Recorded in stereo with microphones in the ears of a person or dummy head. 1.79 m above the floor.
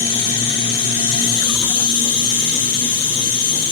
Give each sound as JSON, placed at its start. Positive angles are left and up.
{"t": 0.0, "sound": "an insect", "side_deg": 35, "distance_m": 8.5}